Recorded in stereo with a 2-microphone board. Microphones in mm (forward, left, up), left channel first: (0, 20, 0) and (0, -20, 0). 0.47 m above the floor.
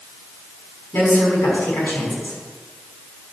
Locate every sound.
0.9 s a woman speaking: 70° left (ahead or behind), 5 m